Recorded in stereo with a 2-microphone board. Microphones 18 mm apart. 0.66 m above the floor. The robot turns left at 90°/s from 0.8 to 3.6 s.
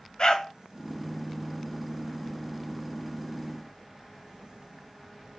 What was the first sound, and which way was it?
A dog barking, 45° left (ahead or behind).